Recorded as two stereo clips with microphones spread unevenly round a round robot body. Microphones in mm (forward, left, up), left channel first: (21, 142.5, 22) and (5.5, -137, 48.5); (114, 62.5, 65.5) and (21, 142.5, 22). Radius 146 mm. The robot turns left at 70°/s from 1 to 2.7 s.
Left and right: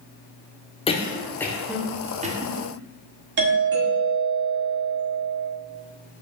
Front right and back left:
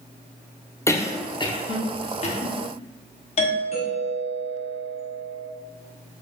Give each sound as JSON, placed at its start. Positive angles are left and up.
{"t": 0.9, "sound": "a cough", "azimuth_deg": 50, "distance_m": 0.8}
{"t": 3.4, "sound": "a doorbell", "azimuth_deg": -70, "distance_m": 1.5}